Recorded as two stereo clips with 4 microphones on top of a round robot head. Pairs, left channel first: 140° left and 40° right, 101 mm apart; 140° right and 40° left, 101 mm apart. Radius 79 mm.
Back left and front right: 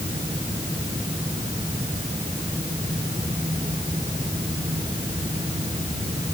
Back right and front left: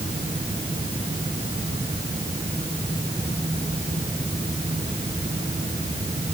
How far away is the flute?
I don't hear a flute.